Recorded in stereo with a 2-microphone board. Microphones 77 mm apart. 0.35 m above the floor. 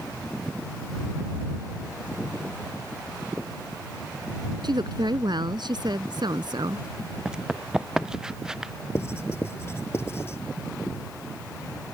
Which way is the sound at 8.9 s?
30° left (ahead or behind).